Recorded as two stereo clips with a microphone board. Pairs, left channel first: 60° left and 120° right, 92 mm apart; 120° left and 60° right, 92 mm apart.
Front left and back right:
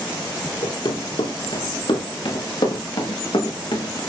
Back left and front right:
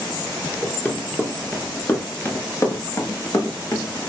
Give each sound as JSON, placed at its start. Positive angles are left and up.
{"t": 0.6, "sound": "running footsteps", "azimuth_deg": 50, "distance_m": 5.0}